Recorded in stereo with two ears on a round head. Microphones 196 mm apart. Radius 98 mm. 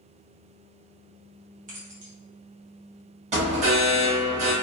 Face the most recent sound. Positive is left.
turn(degrees=-30)  # may be behind; listen again after turning